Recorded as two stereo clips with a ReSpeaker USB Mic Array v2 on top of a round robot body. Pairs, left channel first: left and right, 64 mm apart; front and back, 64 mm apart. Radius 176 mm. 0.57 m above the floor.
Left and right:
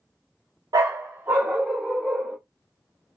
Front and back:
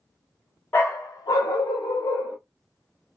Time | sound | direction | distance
0.7 | a dog barking | 65° right | 0.5 m